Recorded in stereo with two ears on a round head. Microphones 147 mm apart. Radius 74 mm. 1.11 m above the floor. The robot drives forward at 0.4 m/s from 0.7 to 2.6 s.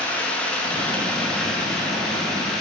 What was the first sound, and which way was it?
Running water, 10° left (ahead or behind).